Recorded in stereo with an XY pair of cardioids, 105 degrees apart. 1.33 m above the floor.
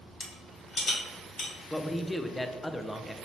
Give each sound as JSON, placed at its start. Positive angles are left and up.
{"t": 0.2, "sound": "a rattle", "azimuth_deg": 50, "distance_m": 1.6}
{"t": 1.7, "sound": "a man speaking", "azimuth_deg": 15, "distance_m": 0.5}